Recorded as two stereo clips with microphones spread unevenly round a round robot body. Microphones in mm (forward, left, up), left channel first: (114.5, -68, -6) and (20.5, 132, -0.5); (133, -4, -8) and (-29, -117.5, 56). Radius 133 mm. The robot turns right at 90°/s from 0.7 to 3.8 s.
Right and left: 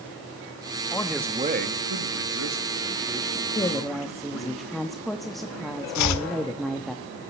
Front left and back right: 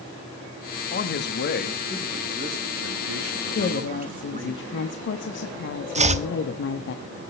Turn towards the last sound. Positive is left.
turn(degrees=-90)